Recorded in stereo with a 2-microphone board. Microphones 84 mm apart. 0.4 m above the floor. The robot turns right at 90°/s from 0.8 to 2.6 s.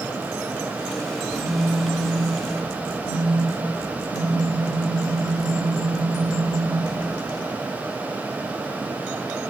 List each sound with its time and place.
1.2 s a phone buzzing: 70° left, 0.9 m; by 7.4 s 165° right, 0.9 m